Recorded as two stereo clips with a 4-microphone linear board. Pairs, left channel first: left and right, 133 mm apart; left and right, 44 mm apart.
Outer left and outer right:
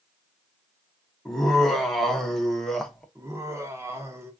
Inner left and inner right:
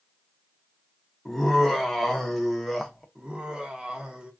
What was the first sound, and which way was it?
Laughter, 5° left (ahead or behind).